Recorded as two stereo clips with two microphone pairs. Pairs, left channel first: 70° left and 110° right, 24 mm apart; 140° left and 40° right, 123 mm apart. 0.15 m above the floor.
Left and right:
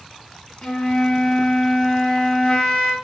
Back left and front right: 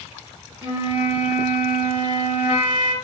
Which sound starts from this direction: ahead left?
A flute, at 0.6 s.